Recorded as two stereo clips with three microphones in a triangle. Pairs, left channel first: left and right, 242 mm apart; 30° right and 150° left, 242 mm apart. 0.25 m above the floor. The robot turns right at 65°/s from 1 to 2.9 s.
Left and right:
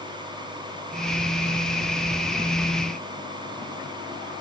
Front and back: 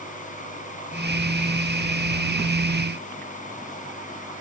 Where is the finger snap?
No finger snap in this recording.